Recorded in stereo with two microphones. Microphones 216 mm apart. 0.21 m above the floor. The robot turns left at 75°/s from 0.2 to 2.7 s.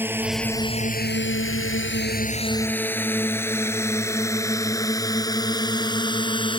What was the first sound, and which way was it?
A drone, 10° right (ahead or behind).